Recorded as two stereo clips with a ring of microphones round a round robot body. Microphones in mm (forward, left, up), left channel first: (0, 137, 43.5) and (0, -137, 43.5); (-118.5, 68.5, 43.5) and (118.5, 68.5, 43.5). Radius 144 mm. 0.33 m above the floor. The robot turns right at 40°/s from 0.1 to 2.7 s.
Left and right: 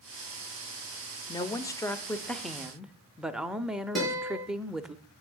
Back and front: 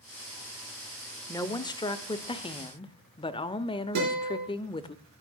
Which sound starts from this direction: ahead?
A guitar, at 4.0 s.